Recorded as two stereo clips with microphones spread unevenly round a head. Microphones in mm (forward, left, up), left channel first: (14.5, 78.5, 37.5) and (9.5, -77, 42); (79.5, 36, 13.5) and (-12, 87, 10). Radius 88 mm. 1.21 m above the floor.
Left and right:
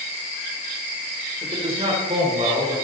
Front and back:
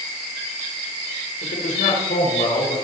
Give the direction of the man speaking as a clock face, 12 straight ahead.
1 o'clock.